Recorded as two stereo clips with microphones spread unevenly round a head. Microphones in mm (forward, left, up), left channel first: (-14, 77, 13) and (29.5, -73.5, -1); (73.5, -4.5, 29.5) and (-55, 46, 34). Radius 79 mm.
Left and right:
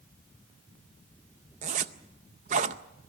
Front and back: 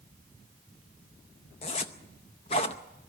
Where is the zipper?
55° right, 0.6 m.